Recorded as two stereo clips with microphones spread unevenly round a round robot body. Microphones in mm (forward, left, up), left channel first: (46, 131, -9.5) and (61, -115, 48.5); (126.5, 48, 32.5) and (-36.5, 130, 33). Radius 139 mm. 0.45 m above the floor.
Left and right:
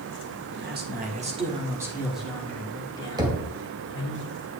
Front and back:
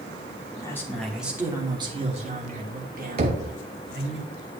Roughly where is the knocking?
Behind.